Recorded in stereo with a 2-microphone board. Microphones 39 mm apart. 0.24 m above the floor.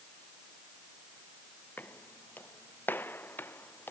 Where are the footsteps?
55° left (ahead or behind); by 3.9 s 65° left (ahead or behind).